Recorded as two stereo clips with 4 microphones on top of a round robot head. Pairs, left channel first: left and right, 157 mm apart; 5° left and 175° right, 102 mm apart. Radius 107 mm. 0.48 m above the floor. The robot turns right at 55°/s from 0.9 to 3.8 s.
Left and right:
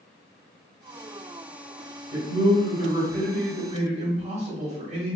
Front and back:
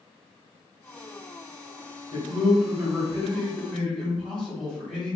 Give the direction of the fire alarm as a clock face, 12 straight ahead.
I don't hear a fire alarm.